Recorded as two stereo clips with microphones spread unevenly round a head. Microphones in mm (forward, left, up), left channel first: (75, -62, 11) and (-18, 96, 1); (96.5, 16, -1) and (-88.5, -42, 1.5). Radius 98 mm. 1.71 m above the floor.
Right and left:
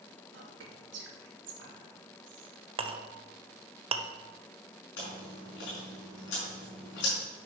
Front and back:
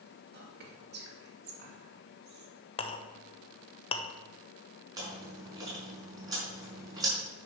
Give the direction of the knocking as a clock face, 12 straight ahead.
No knocking in this recording.